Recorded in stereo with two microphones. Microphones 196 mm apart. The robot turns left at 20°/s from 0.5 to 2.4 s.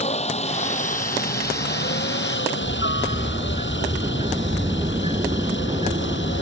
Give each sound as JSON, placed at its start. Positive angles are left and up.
{"t": 0.0, "sound": "a helicopter", "side_deg": 35}
{"t": 2.6, "sound": "a sliding door", "side_deg": -25}